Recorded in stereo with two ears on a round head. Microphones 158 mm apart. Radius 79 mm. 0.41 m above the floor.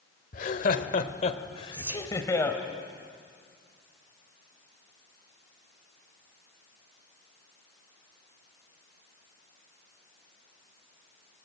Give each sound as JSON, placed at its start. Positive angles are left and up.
{"t": 0.3, "sound": "laughter", "side_deg": 50, "distance_m": 1.4}
{"t": 1.7, "sound": "whispering", "side_deg": -15, "distance_m": 1.8}